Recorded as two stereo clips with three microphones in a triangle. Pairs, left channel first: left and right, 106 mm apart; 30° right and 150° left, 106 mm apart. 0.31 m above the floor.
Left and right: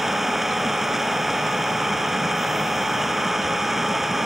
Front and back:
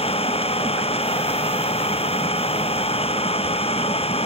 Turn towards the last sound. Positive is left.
turn(degrees=0)